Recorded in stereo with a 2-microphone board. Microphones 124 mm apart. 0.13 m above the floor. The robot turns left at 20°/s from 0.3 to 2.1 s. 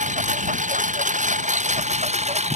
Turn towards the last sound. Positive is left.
turn(degrees=-115)